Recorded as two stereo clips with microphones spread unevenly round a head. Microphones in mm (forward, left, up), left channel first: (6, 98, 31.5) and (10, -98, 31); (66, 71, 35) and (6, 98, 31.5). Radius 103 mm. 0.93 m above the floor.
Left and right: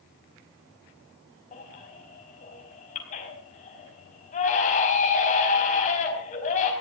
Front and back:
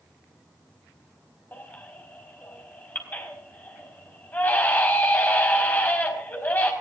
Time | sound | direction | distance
1.5 | a baby crying | 40° left | 5 m